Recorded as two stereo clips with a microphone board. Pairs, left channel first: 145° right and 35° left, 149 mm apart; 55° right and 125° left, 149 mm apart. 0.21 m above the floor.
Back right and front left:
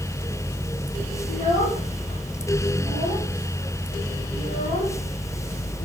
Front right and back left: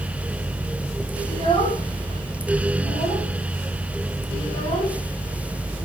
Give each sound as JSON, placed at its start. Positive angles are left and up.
{"t": 1.3, "sound": "a child speaking", "azimuth_deg": -110, "distance_m": 6.0}